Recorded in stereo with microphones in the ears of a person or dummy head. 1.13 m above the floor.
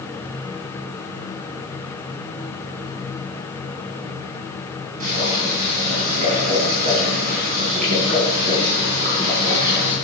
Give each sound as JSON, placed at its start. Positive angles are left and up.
{"t": 5.0, "sound": "boiling", "side_deg": -40, "distance_m": 6.0}